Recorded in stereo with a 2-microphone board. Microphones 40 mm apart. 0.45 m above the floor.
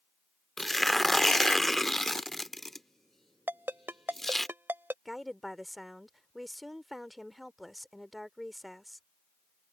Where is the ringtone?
65° right (ahead or behind).